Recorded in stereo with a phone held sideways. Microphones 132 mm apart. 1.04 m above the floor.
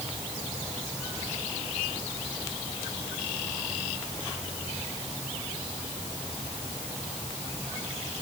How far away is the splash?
I don't hear a splash.